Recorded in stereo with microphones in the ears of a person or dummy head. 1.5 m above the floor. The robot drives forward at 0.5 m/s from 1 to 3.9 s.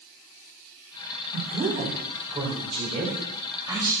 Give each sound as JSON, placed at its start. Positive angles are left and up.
{"t": 1.3, "sound": "a woman speaking", "side_deg": -45, "distance_m": 1.3}